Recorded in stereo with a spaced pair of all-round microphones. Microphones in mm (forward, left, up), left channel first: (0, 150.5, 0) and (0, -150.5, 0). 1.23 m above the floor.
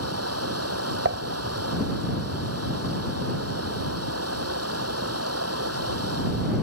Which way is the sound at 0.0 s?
55° right (ahead or behind).